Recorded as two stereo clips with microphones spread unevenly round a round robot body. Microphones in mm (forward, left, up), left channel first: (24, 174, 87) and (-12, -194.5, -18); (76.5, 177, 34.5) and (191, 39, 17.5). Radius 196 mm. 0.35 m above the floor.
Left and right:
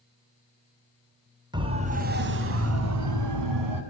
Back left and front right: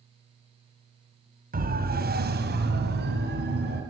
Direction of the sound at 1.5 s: 25° right.